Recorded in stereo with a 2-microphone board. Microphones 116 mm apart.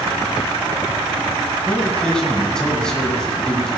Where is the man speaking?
5° left (ahead or behind), 1.9 m.